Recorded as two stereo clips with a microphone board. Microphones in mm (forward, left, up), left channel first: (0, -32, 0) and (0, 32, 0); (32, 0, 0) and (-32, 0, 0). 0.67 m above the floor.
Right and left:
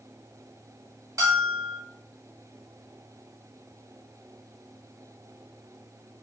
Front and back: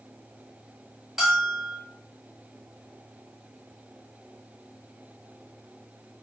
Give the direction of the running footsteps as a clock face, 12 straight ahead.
I don't hear running footsteps.